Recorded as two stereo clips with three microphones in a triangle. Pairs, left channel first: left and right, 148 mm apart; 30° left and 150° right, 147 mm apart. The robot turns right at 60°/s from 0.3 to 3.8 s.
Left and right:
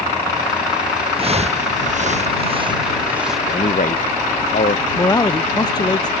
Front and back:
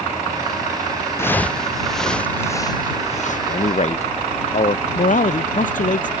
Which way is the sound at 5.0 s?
30° left.